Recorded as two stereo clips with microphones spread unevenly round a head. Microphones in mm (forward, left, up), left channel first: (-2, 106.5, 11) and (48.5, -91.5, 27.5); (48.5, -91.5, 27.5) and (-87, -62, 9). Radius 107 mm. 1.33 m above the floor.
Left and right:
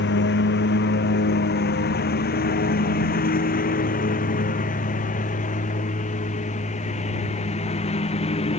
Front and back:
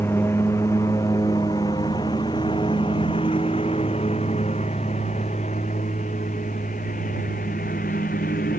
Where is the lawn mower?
65° left; by 8.6 s 45° left.